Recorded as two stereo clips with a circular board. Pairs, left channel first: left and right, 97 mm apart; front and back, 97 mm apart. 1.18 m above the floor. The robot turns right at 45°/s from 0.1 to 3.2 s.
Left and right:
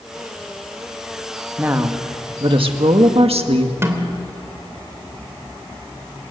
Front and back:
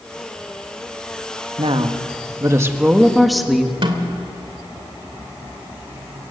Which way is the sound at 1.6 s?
165° right.